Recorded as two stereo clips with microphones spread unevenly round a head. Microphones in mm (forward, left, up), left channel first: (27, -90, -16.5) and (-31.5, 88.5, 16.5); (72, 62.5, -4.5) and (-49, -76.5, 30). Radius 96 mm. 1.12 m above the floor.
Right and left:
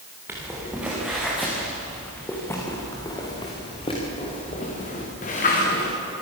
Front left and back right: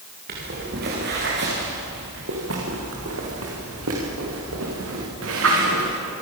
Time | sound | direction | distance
0.3 | footsteps | 175° right | 8 m